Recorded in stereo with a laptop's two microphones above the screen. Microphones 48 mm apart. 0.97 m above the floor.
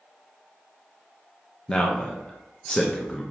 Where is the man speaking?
15° left (ahead or behind), 0.6 m.